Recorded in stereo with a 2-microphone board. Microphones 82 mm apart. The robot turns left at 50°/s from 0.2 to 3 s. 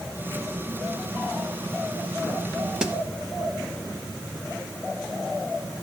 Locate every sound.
2.8 s a snare drum: 10° right (ahead or behind), 1.0 m; by 3.0 s 15° right (ahead or behind), 1.0 m